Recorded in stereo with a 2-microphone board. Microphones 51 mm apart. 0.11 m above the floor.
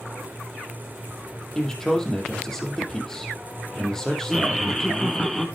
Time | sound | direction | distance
1.6 | a man speaking | 10° left (ahead or behind) | 4 m
4.3 | laughter | 10° left (ahead or behind) | 2.5 m